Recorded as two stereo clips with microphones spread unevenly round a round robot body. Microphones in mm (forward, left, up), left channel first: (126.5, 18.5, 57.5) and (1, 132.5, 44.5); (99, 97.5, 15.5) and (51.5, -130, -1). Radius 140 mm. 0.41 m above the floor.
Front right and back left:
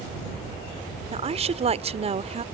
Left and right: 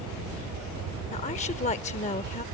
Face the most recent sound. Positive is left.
turn(degrees=130)